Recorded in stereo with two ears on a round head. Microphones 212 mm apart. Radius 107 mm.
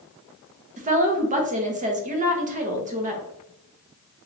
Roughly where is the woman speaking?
Right.